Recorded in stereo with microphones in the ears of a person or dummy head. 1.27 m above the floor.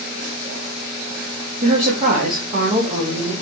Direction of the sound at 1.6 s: 30° right (ahead or behind).